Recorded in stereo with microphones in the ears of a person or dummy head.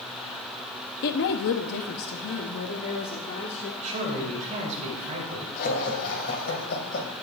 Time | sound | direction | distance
1.0 | a woman speaking | 55° left (ahead or behind) | 0.8 m
3.8 | a man speaking | 40° right (ahead or behind) | 6 m
5.6 | laughter | 50° left (ahead or behind) | 2 m